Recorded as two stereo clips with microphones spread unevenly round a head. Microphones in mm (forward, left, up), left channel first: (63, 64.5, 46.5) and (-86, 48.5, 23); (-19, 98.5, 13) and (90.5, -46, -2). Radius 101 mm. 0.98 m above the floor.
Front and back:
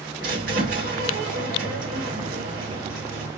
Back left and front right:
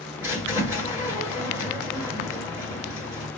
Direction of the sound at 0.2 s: 130° right.